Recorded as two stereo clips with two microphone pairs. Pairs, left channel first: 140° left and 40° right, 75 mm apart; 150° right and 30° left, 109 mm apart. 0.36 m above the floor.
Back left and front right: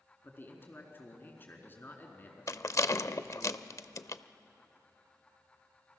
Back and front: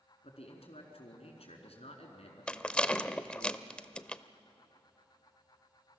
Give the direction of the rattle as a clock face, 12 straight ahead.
8 o'clock.